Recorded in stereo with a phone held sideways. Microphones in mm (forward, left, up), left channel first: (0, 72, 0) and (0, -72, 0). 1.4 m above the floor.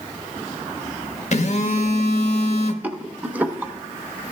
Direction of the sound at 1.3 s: 50° left (ahead or behind).